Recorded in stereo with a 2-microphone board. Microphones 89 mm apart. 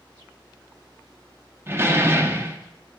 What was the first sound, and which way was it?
A door slam, 25° right (ahead or behind).